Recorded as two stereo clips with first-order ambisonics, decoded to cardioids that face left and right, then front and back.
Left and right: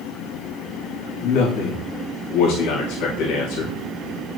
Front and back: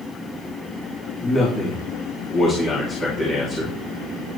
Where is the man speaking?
60° left, 3 m.